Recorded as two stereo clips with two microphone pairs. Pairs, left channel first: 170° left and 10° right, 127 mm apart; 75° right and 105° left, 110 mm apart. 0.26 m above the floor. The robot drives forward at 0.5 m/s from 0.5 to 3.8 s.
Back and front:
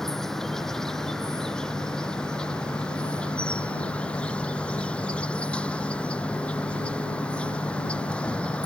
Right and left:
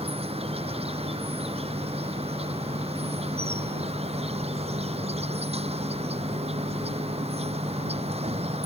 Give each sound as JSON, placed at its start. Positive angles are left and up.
{"t": 0.0, "sound": "an insect", "azimuth_deg": 80}